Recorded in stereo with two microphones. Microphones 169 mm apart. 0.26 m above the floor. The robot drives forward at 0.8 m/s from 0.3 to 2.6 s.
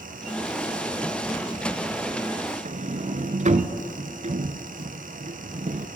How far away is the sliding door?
About 0.6 m.